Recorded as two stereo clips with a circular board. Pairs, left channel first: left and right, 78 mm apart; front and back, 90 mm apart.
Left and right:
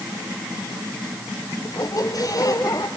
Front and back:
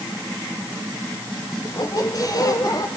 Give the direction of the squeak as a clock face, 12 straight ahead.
10 o'clock.